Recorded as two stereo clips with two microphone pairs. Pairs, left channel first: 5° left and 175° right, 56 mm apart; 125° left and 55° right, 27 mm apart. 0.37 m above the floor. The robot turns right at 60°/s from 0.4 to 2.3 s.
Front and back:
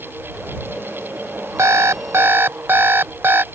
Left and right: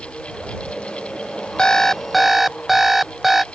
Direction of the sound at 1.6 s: Straight behind.